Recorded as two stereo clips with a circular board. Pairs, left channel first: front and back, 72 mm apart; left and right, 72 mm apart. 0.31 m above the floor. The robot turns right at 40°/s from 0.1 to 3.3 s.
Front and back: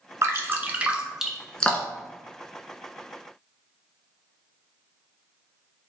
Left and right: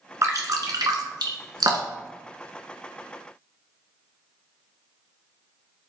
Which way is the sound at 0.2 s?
135° right.